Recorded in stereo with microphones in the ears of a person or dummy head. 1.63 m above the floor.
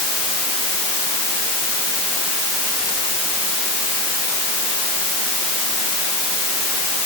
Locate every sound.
Only background noise.